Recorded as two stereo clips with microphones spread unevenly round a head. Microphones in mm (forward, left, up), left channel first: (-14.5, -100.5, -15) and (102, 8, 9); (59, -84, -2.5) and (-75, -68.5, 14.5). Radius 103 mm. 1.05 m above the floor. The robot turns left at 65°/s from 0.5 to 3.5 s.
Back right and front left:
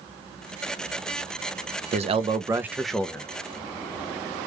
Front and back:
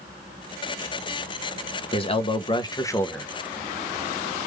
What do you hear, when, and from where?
1.9 s a man speaking: 5° left, 0.7 m; by 3.3 s 85° right, 0.7 m